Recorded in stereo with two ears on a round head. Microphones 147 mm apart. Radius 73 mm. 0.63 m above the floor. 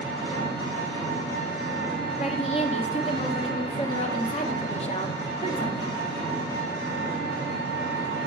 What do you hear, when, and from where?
0.0 s an engine running: 45° left (ahead or behind), 4.5 m
2.2 s a woman speaking: 35° left (ahead or behind), 1.1 m